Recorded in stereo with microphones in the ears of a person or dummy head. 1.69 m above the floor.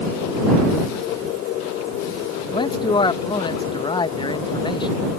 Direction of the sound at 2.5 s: 20° left (ahead or behind).